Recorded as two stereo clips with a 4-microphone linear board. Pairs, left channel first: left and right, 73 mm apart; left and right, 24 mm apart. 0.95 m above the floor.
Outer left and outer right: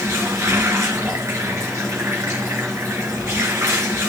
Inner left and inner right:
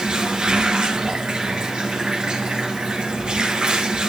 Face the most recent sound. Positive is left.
turn(degrees=-45)  # may be behind; listen again after turning